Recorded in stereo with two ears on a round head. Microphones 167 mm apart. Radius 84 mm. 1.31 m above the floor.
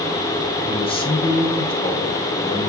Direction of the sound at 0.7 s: 30° left (ahead or behind).